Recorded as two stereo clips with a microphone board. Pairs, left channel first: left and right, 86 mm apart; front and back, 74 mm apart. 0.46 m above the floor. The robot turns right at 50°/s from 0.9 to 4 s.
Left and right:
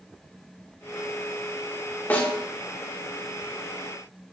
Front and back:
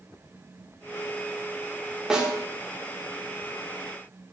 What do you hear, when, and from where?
2.1 s a snare drum: 115° left, 0.7 m; by 2.3 s 130° left, 0.7 m